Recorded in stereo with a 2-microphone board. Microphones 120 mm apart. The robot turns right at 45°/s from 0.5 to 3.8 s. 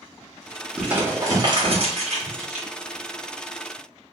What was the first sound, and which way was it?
Crumpling, 5° right (ahead or behind).